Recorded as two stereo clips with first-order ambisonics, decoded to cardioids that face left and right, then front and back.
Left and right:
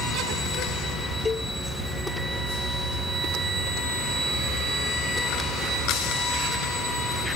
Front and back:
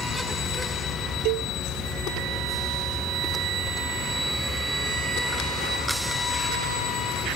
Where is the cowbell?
165° left.